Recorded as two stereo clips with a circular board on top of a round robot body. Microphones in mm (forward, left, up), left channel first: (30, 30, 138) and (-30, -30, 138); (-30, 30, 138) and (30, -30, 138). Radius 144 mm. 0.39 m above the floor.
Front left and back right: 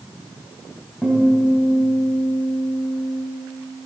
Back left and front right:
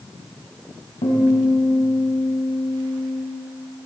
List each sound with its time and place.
1.0 s a guitar: 130° left, 3 m